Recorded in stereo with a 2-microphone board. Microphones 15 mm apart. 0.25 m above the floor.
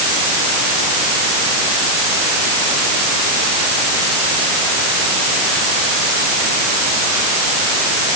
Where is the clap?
No clap in this recording.